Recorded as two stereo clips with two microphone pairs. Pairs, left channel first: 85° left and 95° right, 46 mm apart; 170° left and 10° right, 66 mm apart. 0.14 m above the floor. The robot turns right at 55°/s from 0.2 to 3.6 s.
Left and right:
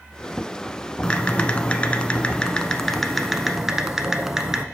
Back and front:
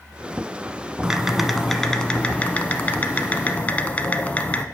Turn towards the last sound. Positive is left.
turn(degrees=-165)